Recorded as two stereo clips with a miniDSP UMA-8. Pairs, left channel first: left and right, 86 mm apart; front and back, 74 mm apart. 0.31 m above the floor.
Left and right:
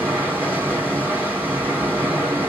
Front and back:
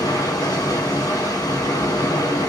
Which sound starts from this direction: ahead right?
Running water, at 0.0 s.